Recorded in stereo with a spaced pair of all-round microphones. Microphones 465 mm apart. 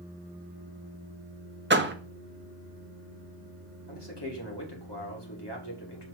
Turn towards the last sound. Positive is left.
turn(degrees=60)  # may be behind; listen again after turning